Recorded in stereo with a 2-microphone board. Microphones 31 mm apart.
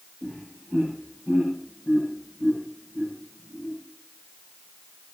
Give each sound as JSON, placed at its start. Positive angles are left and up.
{"t": 0.2, "sound": "laughter", "side_deg": -10, "distance_m": 7.5}